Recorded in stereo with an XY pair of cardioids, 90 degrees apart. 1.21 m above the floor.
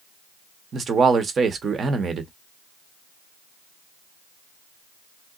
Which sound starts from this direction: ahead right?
A man speaking, at 0.7 s.